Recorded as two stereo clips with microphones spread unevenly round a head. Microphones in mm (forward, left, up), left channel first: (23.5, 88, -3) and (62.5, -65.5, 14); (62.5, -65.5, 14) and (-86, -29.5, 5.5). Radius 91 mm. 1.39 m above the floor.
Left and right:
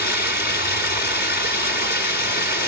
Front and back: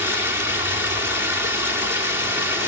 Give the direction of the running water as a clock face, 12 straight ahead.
9 o'clock.